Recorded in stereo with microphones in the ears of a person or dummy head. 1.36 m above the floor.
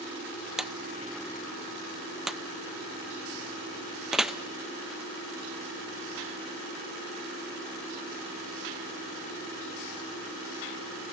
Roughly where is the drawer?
Centre.